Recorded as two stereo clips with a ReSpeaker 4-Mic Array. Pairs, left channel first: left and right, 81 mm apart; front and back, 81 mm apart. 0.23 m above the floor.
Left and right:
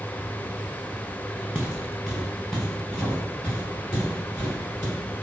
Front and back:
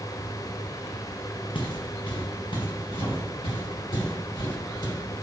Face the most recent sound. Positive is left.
turn(degrees=20)